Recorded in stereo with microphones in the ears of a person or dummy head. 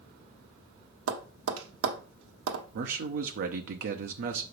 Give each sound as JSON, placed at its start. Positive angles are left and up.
{"t": 1.1, "sound": "tapping", "side_deg": -85, "distance_m": 1.1}
{"t": 2.7, "sound": "a man speaking", "side_deg": -45, "distance_m": 0.7}